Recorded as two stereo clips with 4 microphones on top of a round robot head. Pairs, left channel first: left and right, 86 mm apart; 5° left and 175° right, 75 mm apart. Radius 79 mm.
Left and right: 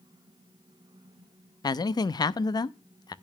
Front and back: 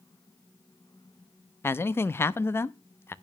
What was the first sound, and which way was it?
A man speaking, 60° left.